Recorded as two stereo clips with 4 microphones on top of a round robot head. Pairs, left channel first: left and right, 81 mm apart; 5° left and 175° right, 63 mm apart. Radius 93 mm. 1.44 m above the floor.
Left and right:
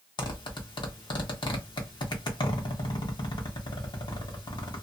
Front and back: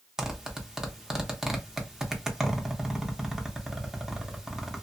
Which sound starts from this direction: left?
A zipper, at 0.2 s.